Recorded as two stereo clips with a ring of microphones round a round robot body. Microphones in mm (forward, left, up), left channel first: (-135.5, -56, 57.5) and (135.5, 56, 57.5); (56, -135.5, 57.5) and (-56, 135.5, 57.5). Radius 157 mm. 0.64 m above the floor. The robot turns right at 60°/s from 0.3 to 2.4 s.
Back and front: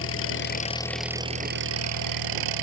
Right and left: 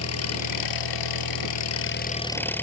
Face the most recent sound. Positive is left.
turn(degrees=15)